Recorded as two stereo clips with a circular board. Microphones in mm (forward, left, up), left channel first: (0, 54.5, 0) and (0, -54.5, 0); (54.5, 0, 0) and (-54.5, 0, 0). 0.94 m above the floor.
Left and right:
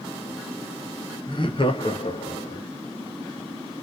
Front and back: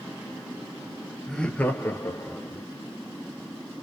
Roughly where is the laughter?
Left.